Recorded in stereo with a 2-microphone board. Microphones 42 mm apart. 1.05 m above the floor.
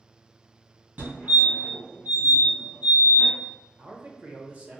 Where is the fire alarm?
50° right (ahead or behind), 2.0 m.